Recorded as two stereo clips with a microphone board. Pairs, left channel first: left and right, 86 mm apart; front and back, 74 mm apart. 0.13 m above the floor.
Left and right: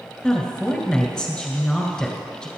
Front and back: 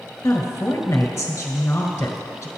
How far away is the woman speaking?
About 1.5 m.